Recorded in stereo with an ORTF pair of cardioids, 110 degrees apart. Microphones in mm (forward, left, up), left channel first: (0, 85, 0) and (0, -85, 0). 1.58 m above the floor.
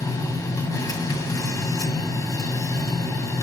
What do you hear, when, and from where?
0.0 s a machine running: 20° left, 1.9 m